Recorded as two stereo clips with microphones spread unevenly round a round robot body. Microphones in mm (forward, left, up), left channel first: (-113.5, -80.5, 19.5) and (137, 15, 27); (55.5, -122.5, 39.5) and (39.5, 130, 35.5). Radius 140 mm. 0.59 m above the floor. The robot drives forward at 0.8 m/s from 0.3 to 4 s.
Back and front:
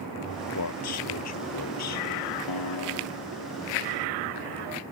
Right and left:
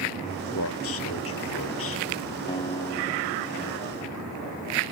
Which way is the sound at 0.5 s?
130° right.